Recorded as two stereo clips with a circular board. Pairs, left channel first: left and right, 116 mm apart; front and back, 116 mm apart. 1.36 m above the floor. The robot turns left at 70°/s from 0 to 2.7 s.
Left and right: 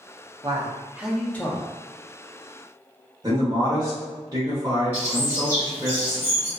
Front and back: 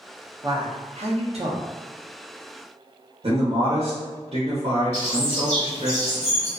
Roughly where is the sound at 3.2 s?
Behind right.